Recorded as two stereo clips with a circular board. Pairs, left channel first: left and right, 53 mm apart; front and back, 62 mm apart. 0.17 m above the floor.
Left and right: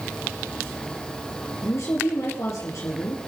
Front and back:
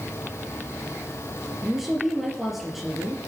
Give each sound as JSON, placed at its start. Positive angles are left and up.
{"t": 1.6, "sound": "a woman speaking", "azimuth_deg": 95, "distance_m": 3.5}